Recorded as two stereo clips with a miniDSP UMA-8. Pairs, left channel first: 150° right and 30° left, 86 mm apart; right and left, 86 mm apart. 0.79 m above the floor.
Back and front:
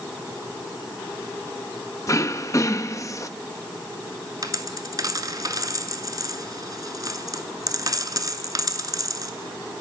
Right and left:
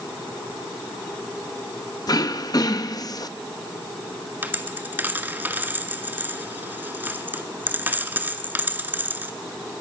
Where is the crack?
No crack in this recording.